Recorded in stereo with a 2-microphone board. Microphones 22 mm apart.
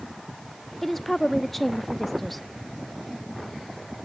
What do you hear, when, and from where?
0.8 s a woman speaking: 10° left (ahead or behind), 0.6 m